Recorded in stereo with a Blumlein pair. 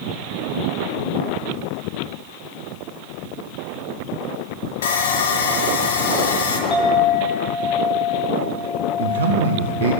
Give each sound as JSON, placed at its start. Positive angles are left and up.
{"t": 4.8, "sound": "sawing", "azimuth_deg": 60, "distance_m": 0.7}
{"t": 6.7, "sound": "a clink", "azimuth_deg": 20, "distance_m": 1.3}
{"t": 9.0, "sound": "a man speaking", "azimuth_deg": -65, "distance_m": 0.5}